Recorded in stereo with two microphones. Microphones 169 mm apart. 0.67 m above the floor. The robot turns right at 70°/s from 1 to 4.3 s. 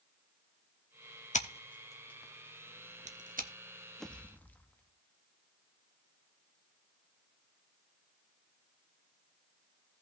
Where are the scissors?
45° left (ahead or behind), 1.0 m; by 3.5 s 55° right (ahead or behind), 1.0 m.